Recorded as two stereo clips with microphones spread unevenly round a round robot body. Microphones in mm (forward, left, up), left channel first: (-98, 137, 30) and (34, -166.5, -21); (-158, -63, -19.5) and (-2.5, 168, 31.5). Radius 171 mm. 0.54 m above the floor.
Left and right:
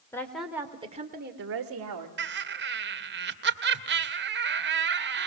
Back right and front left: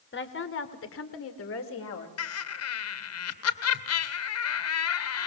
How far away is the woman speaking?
About 2 m.